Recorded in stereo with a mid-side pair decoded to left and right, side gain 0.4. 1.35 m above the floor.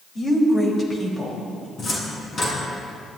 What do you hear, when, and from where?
0.1 s a woman speaking: 35° left, 5.5 m
1.8 s a cupboard door: 40° left, 6 m